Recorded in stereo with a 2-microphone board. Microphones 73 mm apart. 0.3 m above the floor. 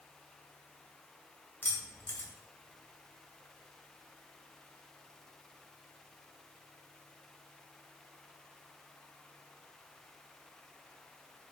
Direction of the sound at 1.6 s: 30° left (ahead or behind).